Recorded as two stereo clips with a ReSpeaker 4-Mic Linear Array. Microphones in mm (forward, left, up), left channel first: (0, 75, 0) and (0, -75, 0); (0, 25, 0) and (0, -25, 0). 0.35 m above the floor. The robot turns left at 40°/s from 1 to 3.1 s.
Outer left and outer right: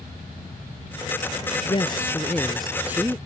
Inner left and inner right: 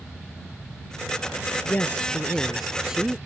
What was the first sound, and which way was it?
A woman speaking, 40° left.